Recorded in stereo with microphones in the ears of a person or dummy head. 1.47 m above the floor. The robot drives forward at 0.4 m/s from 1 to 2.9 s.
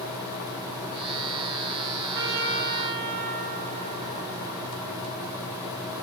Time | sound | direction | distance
2.1 | a trumpet | 65° right (ahead or behind) | 1.4 m